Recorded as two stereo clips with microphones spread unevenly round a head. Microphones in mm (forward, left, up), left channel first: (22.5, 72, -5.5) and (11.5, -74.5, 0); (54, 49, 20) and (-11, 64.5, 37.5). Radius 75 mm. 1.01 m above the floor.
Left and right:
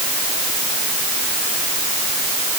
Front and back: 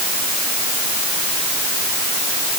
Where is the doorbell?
No doorbell in this recording.